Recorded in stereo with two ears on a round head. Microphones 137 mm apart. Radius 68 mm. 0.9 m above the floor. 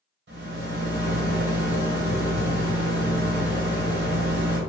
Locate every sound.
0.3 s a rattle: 75° right (ahead or behind), 1.7 m